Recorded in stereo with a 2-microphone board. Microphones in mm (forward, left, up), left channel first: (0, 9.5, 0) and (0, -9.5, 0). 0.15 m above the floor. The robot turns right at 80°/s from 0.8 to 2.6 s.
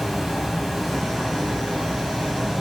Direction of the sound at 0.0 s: 175° right.